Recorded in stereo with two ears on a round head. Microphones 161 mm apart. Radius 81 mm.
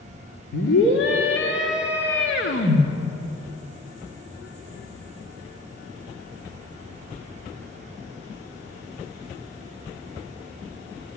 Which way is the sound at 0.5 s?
70° left (ahead or behind).